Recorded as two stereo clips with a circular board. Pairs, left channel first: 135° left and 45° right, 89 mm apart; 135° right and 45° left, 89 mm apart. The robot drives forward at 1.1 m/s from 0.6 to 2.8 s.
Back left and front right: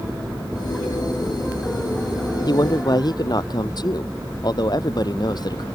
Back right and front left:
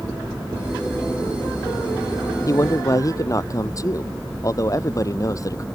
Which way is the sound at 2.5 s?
175° left.